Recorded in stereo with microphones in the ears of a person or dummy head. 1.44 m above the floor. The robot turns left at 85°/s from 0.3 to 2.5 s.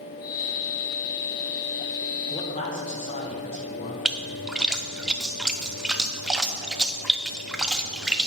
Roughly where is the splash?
Centre.